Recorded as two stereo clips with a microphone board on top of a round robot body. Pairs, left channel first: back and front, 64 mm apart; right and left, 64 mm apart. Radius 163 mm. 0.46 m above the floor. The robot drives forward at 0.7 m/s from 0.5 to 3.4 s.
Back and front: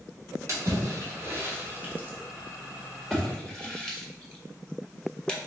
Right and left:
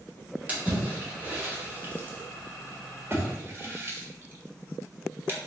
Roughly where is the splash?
Ahead left.